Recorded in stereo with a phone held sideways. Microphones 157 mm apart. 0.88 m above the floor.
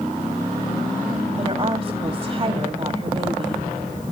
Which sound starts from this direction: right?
A woman speaking, at 1.4 s.